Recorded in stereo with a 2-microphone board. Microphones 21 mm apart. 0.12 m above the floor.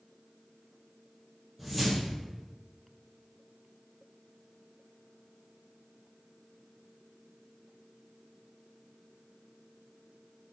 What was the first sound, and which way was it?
A whoosh, centre (ahead or behind).